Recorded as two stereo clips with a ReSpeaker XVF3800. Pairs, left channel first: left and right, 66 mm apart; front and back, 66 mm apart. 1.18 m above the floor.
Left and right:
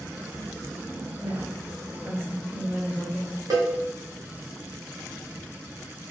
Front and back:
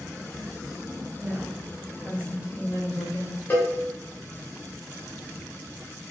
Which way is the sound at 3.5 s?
60° right.